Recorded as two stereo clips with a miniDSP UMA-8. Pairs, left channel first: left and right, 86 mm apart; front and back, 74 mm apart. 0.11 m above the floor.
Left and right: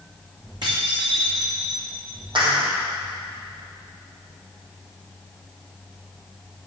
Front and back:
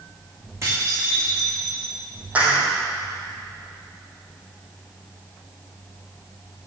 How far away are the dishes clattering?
About 5 m.